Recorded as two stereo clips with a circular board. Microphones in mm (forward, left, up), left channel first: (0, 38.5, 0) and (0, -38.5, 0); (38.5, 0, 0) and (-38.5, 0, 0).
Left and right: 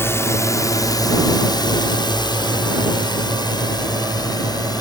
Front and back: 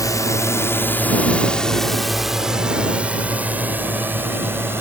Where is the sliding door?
I don't hear a sliding door.